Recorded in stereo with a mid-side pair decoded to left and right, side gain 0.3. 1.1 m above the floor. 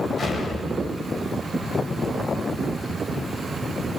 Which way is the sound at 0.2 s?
65° left.